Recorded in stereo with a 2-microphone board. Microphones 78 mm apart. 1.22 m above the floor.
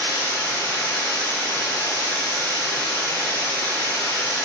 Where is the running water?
30° left (ahead or behind), 0.8 m.